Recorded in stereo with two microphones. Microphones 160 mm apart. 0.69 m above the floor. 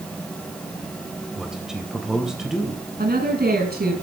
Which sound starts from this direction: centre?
A man speaking, at 1.4 s.